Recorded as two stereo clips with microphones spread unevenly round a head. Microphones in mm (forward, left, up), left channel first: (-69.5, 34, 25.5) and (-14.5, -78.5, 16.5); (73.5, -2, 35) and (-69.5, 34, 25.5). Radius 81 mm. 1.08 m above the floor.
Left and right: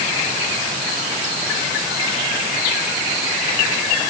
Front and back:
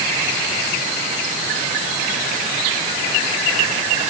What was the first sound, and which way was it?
Only background noise.